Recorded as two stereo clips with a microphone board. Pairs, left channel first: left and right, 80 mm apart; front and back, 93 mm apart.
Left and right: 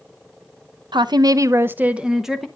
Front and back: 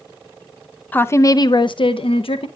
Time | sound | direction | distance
0.9 | a woman speaking | 70° right | 0.5 m